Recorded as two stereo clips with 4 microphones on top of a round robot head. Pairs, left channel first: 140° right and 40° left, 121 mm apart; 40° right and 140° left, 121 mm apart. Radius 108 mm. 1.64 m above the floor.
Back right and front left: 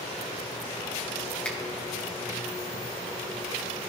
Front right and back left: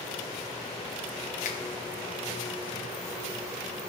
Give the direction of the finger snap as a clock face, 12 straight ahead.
2 o'clock.